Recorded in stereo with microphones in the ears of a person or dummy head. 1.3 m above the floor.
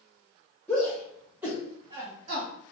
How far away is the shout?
About 1.2 m.